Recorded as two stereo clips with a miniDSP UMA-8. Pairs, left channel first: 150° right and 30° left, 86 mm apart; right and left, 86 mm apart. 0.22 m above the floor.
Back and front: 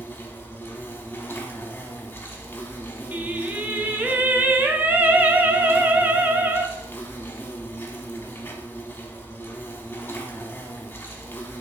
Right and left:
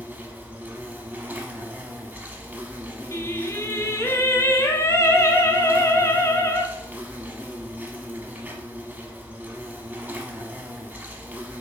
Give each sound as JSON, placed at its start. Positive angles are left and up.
{"t": 0.0, "sound": "an insect", "azimuth_deg": 155, "distance_m": 0.8}
{"t": 3.1, "sound": "singing", "azimuth_deg": -35, "distance_m": 0.5}